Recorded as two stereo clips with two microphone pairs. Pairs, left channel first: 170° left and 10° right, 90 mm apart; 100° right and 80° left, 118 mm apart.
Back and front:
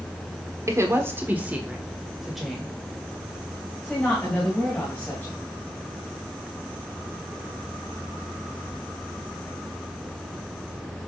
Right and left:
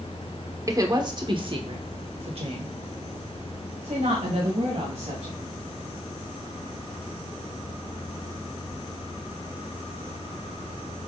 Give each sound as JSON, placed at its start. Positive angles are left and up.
{"t": 0.7, "sound": "a woman speaking", "azimuth_deg": 30, "distance_m": 1.2}